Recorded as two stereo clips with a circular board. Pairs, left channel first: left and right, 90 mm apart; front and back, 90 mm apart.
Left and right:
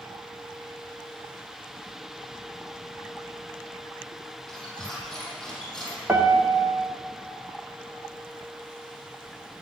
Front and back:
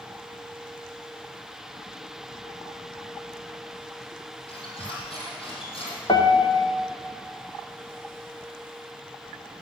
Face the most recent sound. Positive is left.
turn(degrees=-25)